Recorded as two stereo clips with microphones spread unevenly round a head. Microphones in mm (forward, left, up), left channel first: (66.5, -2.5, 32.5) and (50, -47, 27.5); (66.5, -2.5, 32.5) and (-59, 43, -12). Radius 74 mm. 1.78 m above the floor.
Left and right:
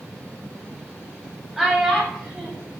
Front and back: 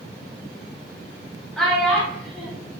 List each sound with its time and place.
1.6 s a child speaking: 20° right, 0.5 m